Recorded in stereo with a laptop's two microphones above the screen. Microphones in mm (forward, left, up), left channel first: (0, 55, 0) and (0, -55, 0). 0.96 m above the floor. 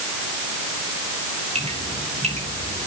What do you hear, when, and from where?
1.6 s dripping: 75° right (ahead or behind), 4 m